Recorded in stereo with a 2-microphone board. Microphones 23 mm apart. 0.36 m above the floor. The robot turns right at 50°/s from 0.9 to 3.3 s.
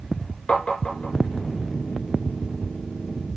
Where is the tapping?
55° left (ahead or behind), 2.5 m; by 1.1 s 65° left (ahead or behind), 2.5 m.